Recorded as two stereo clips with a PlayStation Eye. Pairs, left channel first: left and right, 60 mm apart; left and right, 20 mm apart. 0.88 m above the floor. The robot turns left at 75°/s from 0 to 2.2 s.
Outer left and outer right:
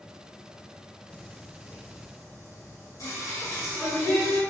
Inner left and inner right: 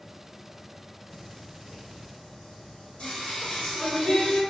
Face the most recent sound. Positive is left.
turn(degrees=60)  # may be behind; listen again after turning